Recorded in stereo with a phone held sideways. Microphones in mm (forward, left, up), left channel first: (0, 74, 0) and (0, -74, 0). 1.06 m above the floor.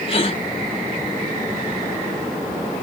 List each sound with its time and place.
0.1 s a gasp: 35° left (ahead or behind), 1.6 m